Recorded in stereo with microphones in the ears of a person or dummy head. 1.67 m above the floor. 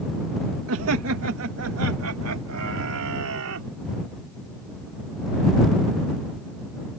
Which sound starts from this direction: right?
Laughter, at 0.7 s.